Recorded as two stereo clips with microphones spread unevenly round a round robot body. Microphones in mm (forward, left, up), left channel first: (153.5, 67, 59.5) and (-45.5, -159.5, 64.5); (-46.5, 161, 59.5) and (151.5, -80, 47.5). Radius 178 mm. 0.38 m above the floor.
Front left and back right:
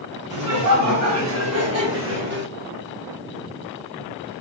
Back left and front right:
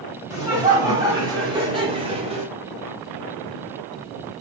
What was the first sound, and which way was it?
Laughter, 130° right.